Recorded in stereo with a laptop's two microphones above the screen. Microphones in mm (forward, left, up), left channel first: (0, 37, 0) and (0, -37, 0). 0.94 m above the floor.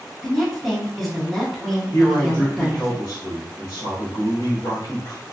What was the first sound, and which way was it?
A woman speaking, centre (ahead or behind).